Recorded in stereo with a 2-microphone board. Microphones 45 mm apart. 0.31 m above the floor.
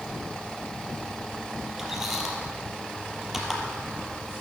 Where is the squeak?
5° right (ahead or behind), 3 m.